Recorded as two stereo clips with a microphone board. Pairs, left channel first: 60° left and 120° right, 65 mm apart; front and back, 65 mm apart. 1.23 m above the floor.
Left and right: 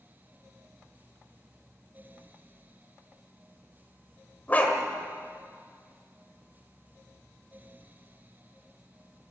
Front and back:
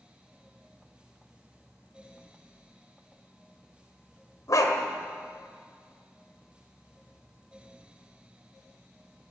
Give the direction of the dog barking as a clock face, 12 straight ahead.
12 o'clock.